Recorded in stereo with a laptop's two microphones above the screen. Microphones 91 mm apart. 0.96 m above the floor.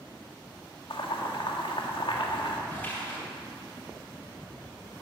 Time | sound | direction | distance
0.9 | boiling | 75° left (ahead or behind) | 1.8 m
2.7 | a splash | 20° left (ahead or behind) | 6 m